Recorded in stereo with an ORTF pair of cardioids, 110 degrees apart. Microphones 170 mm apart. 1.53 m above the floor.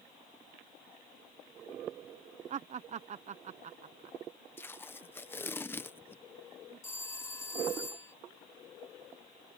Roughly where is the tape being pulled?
Ahead.